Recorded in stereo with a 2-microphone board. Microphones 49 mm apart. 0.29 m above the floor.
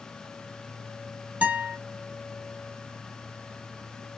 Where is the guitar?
30° right (ahead or behind), 1.8 m.